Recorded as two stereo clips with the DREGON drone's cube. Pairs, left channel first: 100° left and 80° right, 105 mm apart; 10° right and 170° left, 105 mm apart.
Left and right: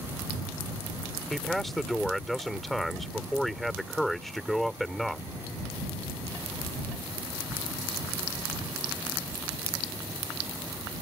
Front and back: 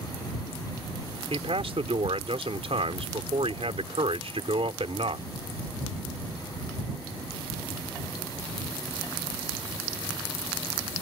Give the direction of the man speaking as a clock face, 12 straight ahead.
6 o'clock.